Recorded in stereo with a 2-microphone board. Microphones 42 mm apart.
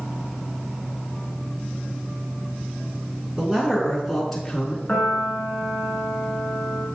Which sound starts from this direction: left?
A piano, at 4.9 s.